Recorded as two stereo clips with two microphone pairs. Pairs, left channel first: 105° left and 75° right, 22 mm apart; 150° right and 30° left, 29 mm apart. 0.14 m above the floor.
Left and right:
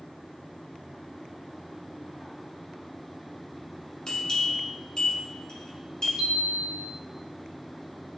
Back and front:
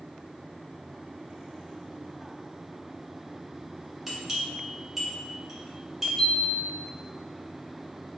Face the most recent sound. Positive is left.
turn(degrees=-75)